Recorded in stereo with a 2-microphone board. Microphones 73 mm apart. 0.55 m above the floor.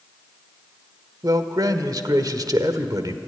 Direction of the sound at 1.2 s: 60° right (ahead or behind).